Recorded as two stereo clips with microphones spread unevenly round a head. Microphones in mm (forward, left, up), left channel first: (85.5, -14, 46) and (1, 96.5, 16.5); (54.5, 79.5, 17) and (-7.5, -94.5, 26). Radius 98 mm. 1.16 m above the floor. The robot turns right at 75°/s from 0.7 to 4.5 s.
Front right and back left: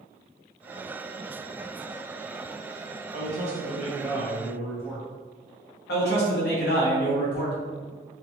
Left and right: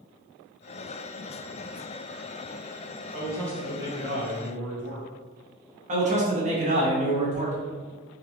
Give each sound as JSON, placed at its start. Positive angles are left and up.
{"t": 3.1, "sound": "a man speaking", "azimuth_deg": 125, "distance_m": 1.1}
{"t": 5.9, "sound": "a man speaking", "azimuth_deg": -55, "distance_m": 1.1}